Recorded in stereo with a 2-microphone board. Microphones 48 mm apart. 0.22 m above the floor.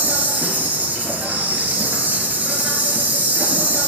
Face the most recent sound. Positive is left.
turn(degrees=-35)  # may be behind; listen again after turning